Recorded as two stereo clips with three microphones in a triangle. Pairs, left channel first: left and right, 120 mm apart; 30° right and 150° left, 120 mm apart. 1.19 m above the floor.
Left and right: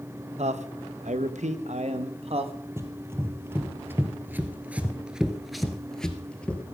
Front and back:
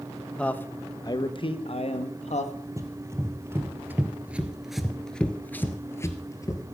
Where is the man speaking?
110° right, 1.0 m; by 2.5 s 50° right, 1.5 m.